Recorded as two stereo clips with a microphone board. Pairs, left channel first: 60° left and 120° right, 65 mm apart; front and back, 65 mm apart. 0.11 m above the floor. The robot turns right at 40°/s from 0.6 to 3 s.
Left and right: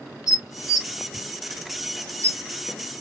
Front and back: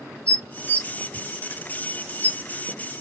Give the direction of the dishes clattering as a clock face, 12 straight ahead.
2 o'clock.